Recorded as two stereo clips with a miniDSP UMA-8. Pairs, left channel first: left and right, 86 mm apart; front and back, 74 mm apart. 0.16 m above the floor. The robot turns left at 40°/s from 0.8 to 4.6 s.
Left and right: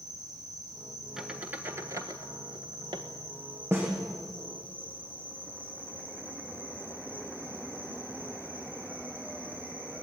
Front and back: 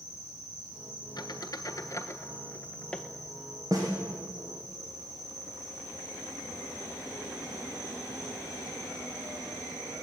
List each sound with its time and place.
0.0 s an insect: 45° right, 9.5 m; by 10.0 s 160° left, 9.5 m
1.2 s a squeak: 5° right, 1.4 m; by 3.0 s 80° right, 1.4 m
3.7 s a snare drum: 145° right, 6 m; by 3.9 s 155° right, 6 m